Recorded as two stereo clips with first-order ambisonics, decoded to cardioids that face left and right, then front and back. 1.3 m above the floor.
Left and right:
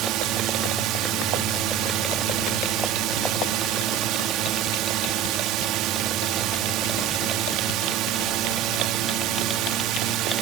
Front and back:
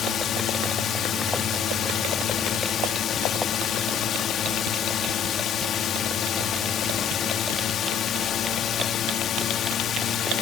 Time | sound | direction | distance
0.0 | a drone | 55° right | ?